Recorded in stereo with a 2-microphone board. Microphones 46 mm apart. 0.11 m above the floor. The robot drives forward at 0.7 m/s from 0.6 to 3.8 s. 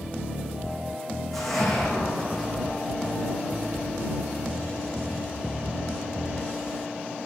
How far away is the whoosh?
About 3 m.